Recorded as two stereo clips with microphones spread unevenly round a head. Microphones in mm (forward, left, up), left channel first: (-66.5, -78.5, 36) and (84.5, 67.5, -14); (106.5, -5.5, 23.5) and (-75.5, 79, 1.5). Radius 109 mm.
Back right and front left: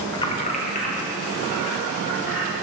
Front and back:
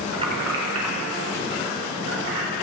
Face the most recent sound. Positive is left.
turn(degrees=170)